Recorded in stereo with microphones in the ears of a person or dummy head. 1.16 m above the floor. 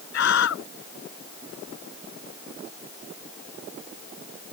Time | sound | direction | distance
0.1 | a scream | 65° left (ahead or behind) | ?